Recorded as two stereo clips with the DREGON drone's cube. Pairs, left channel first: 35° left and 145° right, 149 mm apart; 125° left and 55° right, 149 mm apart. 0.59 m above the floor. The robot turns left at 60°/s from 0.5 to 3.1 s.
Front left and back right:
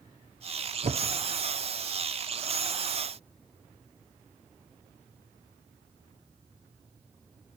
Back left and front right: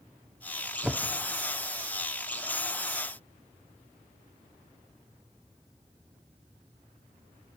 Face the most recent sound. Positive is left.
turn(degrees=90)